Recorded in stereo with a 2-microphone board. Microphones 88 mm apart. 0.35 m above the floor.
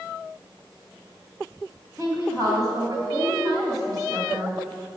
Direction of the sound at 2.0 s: 45° right (ahead or behind).